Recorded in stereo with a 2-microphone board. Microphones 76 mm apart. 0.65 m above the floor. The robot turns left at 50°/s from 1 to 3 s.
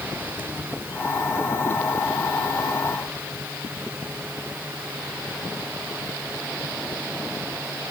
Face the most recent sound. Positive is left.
No sound to turn to.